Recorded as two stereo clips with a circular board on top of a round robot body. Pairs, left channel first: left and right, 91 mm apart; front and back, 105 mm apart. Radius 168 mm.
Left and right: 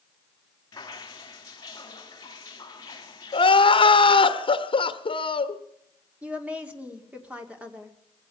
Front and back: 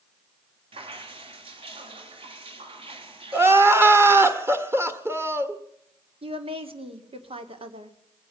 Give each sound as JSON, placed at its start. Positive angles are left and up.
{"t": 0.7, "sound": "dripping", "azimuth_deg": 145, "distance_m": 2.5}
{"t": 3.3, "sound": "crying", "azimuth_deg": 110, "distance_m": 1.4}
{"t": 6.2, "sound": "a woman speaking", "azimuth_deg": -165, "distance_m": 2.5}